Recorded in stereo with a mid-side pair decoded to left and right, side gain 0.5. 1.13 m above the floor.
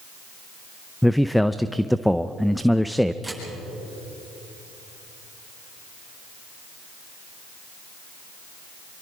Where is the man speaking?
5° left, 0.6 m.